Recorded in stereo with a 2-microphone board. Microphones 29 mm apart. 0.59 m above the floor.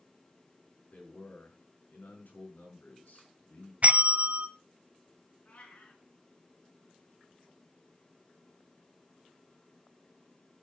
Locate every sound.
0.9 s a man speaking: 75° left (ahead or behind), 6 m
3.8 s a bell: 50° right (ahead or behind), 0.5 m
5.5 s a cat meowing: 55° left (ahead or behind), 4.5 m